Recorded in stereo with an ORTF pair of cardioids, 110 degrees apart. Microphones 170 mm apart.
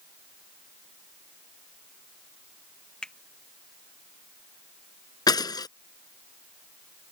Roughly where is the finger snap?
Ahead.